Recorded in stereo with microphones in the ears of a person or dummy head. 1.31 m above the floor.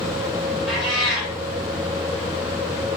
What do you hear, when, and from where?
0.7 s a cat meowing: centre (ahead or behind), 1.8 m